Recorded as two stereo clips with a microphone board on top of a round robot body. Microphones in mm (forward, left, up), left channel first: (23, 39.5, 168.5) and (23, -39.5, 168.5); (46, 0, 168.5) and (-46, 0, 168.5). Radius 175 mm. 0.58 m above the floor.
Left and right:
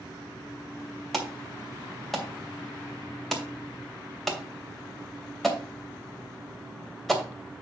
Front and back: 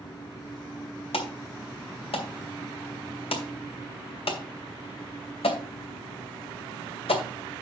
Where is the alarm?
Straight ahead, 2.5 m.